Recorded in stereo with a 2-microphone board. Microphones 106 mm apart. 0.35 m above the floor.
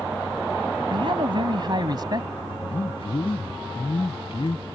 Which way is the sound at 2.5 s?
60° left (ahead or behind).